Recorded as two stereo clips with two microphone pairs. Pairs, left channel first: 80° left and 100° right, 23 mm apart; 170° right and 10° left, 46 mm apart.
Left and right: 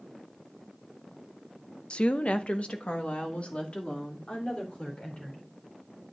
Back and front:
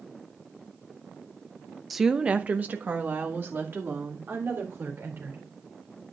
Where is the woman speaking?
100° left, 0.6 m; by 5.5 s 45° left, 4 m.